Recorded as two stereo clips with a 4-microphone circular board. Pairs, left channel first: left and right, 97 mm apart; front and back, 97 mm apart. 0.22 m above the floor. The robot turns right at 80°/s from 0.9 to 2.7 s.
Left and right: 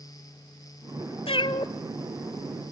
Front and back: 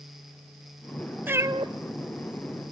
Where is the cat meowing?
110° left, 0.8 m; by 1.7 s 145° left, 0.8 m.